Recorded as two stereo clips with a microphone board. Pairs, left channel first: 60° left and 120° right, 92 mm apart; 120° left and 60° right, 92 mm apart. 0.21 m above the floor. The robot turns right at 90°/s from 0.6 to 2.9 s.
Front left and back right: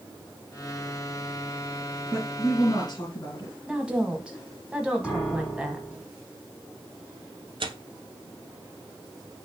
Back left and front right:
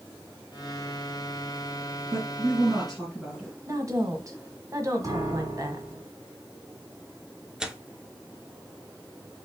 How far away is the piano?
About 2 m.